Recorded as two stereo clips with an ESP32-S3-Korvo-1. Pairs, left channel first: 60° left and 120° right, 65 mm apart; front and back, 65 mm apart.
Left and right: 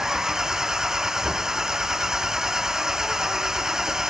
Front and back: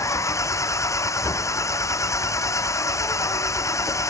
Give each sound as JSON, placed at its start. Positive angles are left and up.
{"t": 0.0, "sound": "an engine running", "azimuth_deg": -40}